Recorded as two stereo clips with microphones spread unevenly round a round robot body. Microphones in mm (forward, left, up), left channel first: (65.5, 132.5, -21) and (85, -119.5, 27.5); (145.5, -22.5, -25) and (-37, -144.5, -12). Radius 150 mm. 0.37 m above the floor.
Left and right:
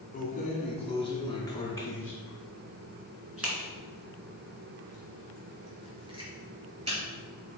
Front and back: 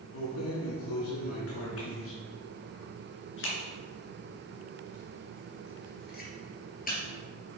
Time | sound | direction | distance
0.1 | keys jangling | 35° left | 2.5 m